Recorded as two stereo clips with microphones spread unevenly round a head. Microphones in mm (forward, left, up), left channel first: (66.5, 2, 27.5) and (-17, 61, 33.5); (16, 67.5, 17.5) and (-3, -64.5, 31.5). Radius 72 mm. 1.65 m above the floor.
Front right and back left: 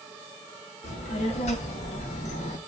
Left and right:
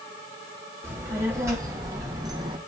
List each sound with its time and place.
0.8 s a child speaking: 25° right, 3.5 m; by 2.6 s 45° right, 1.5 m